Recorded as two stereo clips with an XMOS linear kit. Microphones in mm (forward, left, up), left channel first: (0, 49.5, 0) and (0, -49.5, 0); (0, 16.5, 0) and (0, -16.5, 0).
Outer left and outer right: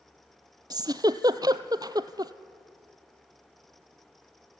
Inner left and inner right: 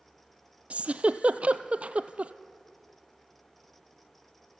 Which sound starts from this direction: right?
A giggle, at 0.7 s.